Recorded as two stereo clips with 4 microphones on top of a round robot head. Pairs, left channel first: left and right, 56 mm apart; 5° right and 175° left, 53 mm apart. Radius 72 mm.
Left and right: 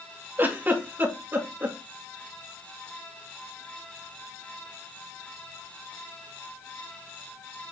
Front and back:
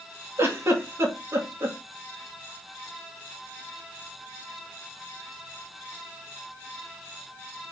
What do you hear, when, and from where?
0.4 s a giggle: 145° right, 1.9 m